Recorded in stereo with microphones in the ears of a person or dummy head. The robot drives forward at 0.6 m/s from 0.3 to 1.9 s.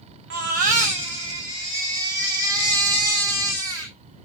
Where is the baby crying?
60° right (ahead or behind), 0.7 m; by 3.9 s 25° right (ahead or behind), 1.5 m.